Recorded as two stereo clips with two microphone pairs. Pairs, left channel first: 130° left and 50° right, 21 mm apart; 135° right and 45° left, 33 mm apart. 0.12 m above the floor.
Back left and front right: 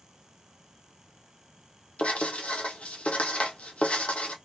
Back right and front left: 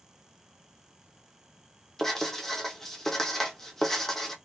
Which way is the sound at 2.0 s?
140° left.